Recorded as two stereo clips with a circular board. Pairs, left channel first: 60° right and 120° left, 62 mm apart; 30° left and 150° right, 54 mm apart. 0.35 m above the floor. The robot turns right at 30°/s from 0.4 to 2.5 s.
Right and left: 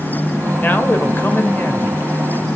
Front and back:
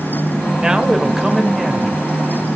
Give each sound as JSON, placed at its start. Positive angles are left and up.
{"t": 0.6, "sound": "a man speaking", "azimuth_deg": -90, "distance_m": 1.4}